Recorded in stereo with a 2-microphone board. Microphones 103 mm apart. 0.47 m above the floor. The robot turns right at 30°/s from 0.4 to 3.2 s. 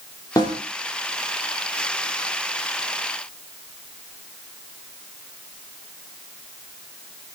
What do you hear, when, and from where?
0.4 s a snare drum: 35° left (ahead or behind), 3 m; by 0.6 s 25° left (ahead or behind), 3 m